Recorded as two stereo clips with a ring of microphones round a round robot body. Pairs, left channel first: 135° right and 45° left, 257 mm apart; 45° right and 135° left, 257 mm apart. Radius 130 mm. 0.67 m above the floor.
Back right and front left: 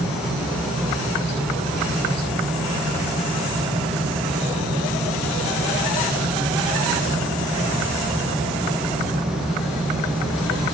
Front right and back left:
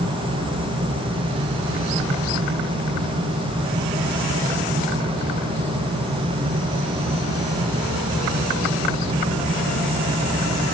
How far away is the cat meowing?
No cat meowing in this recording.